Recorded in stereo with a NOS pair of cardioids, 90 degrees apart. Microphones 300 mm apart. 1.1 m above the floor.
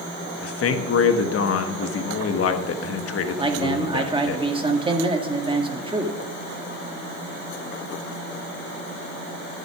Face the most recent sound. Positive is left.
turn(degrees=-15)